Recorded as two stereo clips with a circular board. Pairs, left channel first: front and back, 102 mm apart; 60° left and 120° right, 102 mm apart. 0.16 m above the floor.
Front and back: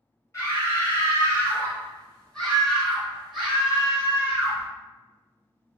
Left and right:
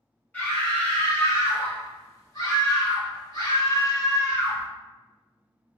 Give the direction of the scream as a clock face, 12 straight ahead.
12 o'clock.